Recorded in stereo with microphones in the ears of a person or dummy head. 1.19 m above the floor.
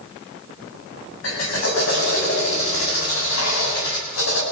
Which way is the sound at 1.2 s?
75° left (ahead or behind).